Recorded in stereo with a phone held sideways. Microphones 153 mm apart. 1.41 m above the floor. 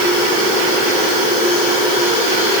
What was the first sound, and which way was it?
Only background noise.